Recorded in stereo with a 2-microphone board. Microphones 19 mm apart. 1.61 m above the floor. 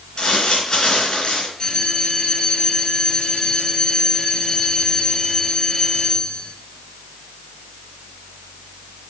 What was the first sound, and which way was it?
Crumpling, 45° left (ahead or behind).